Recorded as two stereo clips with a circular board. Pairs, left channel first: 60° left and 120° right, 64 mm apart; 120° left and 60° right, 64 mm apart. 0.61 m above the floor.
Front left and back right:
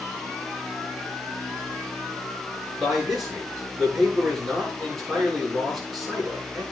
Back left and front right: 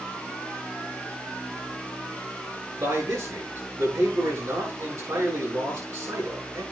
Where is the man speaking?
30° right, 8 m.